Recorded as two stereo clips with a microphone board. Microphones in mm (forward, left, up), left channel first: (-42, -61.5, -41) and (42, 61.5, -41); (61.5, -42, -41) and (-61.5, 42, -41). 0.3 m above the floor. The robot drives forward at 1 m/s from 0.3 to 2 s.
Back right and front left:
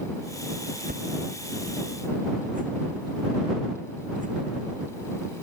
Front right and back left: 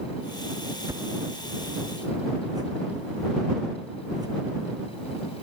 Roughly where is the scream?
I don't hear a scream.